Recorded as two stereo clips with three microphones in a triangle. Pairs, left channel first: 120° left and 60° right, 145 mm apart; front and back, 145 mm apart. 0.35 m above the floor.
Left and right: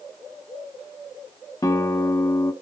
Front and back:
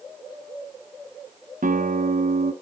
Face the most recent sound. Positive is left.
turn(degrees=-175)